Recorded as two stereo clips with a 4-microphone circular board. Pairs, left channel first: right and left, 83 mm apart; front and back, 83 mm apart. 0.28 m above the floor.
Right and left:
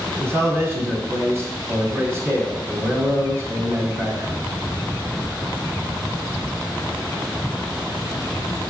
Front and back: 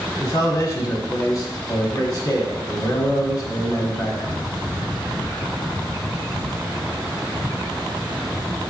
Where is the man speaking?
40° left, 1.8 m.